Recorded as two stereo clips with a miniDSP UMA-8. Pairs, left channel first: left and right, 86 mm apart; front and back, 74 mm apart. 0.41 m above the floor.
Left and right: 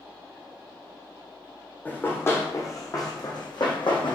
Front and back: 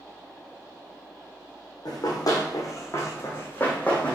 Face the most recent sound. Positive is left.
turn(degrees=75)